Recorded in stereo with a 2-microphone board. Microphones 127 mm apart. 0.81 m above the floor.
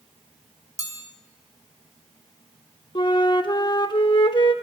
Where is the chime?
30° left (ahead or behind), 2.5 m.